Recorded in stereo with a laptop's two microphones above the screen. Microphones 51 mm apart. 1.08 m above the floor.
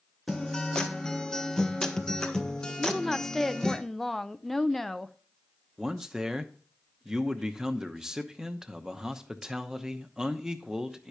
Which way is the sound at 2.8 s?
5° left (ahead or behind).